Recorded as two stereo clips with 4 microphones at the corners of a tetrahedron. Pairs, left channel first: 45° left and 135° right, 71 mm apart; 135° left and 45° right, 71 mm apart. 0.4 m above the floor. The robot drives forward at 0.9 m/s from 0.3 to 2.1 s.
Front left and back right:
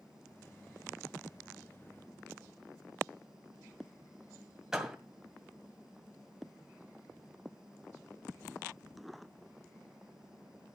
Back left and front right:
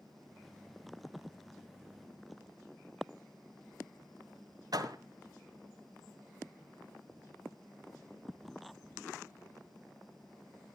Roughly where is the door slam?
Ahead right.